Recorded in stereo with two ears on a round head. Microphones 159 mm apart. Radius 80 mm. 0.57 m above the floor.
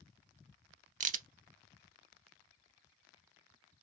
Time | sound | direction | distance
1.0 | a crack | 45° right (ahead or behind) | 0.6 m